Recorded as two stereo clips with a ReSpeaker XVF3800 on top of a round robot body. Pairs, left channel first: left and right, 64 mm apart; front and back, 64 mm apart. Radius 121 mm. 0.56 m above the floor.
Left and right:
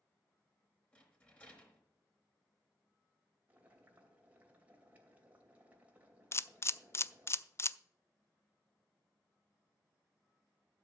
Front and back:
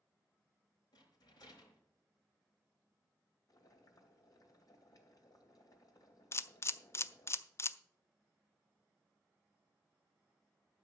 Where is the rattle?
20° left, 4 m.